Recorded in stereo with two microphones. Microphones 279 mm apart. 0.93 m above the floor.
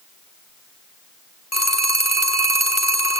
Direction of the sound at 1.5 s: 65° left (ahead or behind).